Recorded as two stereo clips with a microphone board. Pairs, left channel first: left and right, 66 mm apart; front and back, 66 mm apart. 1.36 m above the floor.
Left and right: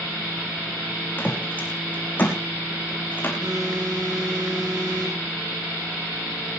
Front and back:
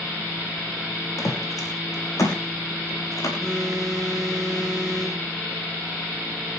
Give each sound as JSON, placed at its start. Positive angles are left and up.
{"t": 1.2, "sound": "footsteps", "azimuth_deg": 30, "distance_m": 5.0}
{"t": 3.4, "sound": "a phone buzzing", "azimuth_deg": -80, "distance_m": 6.5}